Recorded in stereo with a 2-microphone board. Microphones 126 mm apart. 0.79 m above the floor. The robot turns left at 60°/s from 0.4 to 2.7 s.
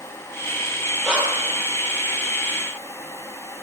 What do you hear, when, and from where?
1.0 s breathing: centre (ahead or behind), 6 m; by 1.5 s 30° right (ahead or behind), 6 m